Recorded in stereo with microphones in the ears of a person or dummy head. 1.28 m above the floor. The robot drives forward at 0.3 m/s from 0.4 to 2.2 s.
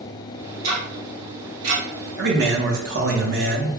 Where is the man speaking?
65° right (ahead or behind), 0.8 m.